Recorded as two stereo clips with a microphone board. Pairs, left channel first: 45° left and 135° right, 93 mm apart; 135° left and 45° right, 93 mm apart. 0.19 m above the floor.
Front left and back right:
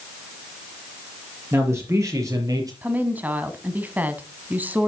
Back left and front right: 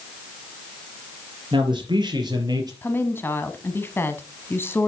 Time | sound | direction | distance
1.5 | a man speaking | 75° right | 4 m
2.8 | a woman speaking | 175° left | 1.1 m